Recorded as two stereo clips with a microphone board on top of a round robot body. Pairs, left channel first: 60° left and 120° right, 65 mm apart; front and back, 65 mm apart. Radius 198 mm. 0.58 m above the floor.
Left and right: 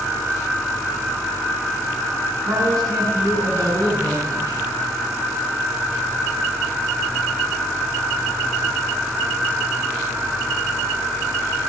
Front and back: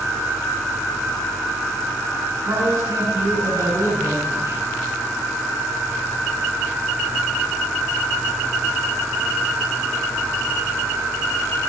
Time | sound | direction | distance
2.4 | a man speaking | 140° right | 9.5 m